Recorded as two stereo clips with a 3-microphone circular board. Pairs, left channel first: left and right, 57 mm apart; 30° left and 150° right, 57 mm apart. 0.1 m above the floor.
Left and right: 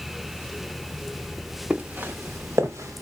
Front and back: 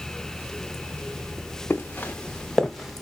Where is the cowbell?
No cowbell in this recording.